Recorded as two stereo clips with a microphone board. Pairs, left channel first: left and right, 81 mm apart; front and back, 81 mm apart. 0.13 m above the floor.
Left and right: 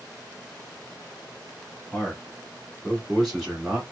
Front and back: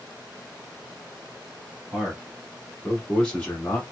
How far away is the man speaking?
About 1.4 m.